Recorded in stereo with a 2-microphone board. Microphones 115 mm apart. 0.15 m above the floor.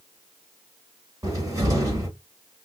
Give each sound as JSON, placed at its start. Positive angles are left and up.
{"t": 1.2, "sound": "a cupboard door", "side_deg": -30, "distance_m": 1.6}